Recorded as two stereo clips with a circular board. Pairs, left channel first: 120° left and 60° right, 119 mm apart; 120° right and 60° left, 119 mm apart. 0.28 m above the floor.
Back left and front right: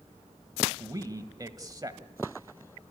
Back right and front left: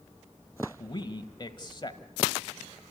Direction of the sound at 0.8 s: 100° right.